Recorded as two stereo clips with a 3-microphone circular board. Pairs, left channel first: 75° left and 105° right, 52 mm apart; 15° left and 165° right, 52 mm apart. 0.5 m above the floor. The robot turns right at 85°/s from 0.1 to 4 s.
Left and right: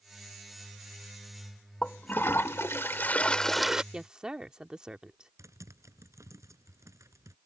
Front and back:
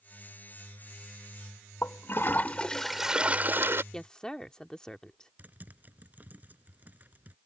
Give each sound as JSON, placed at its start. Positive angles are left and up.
{"t": 1.8, "sound": "a toilet flushing", "azimuth_deg": 10}
{"t": 3.9, "sound": "a woman speaking", "azimuth_deg": -55}
{"t": 5.4, "sound": "typing on a keyboard", "azimuth_deg": -110}